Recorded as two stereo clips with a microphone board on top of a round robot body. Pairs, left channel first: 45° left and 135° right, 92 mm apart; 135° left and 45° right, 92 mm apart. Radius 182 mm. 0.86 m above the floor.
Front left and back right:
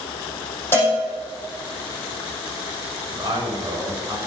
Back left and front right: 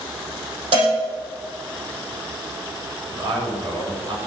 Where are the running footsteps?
I don't hear running footsteps.